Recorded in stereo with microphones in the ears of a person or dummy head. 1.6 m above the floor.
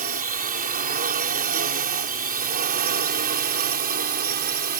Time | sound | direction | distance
0.0 | a drone | 45° right (ahead or behind) | ?